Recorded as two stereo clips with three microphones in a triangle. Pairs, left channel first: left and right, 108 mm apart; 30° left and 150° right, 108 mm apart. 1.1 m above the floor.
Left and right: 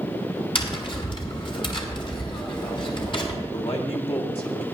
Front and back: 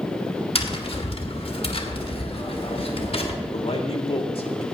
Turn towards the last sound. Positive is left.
turn(degrees=60)